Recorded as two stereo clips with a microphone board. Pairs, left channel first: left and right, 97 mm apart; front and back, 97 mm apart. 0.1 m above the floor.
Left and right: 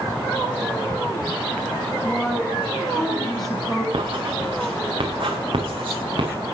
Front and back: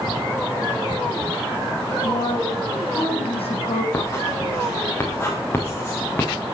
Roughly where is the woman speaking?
Ahead.